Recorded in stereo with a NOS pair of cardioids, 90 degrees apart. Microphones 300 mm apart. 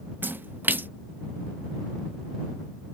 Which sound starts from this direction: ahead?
A splash, at 0.2 s.